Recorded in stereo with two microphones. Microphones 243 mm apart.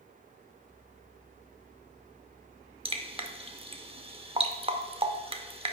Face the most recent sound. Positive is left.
turn(degrees=-25)  # may be behind; listen again after turning